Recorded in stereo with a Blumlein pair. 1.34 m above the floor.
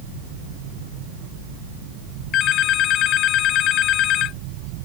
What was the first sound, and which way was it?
A phone ringing, 35° left.